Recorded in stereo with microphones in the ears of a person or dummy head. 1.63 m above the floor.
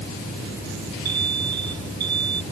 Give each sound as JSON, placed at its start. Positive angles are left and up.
{"t": 1.1, "sound": "an alarm", "side_deg": -70}